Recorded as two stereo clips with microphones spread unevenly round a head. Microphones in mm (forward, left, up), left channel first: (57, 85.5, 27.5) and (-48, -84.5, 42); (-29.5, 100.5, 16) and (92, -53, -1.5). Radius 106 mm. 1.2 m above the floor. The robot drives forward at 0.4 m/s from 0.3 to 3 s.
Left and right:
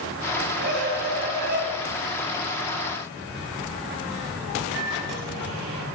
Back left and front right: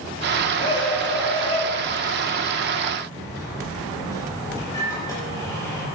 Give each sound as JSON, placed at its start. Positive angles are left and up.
{"t": 0.6, "sound": "a scream", "azimuth_deg": -160, "distance_m": 6.0}
{"t": 3.2, "sound": "a microwave", "azimuth_deg": -155, "distance_m": 5.5}